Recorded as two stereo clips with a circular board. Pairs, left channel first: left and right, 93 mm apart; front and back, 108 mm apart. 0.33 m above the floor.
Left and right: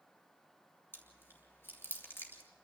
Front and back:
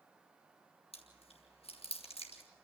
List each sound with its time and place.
0.9 s chewing: 25° left, 3 m